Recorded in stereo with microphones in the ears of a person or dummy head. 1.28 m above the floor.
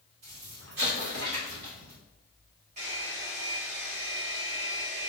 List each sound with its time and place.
0.2 s an explosion: 70° right (ahead or behind), 1.8 m
2.8 s a hair dryer: 35° right (ahead or behind), 1.2 m